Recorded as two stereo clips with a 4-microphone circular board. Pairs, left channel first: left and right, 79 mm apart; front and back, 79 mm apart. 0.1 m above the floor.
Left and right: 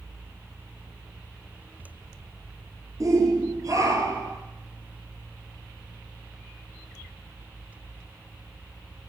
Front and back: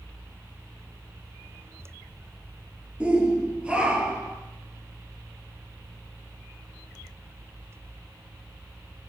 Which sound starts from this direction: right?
A shout, at 3.0 s.